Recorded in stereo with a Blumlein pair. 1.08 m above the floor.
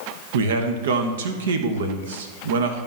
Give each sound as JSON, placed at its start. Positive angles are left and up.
{"t": 0.3, "sound": "a man speaking", "azimuth_deg": -60, "distance_m": 1.1}